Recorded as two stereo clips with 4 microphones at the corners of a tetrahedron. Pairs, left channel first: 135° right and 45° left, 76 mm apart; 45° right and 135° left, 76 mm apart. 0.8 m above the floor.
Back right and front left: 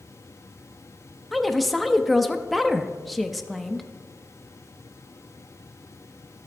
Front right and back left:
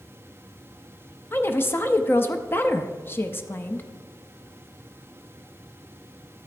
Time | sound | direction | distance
1.3 | a woman speaking | 45° right | 0.5 m